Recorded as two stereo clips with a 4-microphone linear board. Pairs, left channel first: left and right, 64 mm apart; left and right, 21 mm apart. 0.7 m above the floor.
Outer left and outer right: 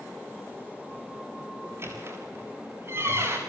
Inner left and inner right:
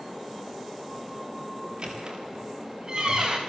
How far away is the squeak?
About 6.5 m.